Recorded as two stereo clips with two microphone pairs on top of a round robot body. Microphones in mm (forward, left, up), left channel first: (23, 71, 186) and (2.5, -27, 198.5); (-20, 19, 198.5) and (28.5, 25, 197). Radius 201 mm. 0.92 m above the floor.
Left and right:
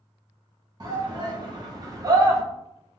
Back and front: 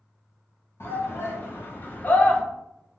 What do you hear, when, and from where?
0.8 s a shout: 150° right, 1.4 m; by 2.4 s 135° right, 0.8 m